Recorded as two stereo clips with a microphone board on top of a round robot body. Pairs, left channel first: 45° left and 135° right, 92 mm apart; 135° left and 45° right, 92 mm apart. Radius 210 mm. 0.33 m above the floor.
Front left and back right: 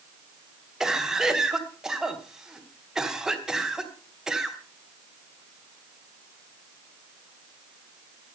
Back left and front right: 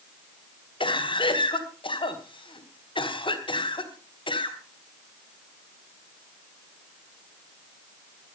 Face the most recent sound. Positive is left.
turn(degrees=140)